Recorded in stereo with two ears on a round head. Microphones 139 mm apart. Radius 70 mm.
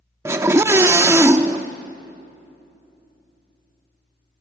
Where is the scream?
15° right (ahead or behind), 0.6 m.